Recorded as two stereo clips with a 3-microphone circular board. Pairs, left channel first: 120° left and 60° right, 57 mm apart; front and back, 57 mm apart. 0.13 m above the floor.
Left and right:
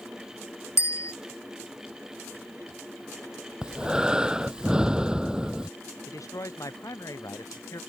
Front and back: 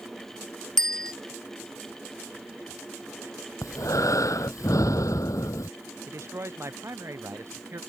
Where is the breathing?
15° left.